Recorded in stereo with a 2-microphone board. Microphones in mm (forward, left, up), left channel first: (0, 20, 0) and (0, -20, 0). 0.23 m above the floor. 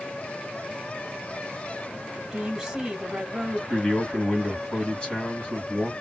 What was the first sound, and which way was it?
A woman speaking, 5° right (ahead or behind).